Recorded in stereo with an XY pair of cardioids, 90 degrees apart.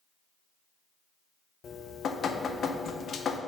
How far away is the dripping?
About 0.6 m.